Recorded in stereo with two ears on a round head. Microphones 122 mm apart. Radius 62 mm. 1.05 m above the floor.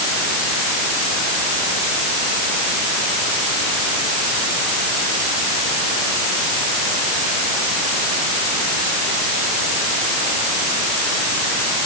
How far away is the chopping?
No chopping in this recording.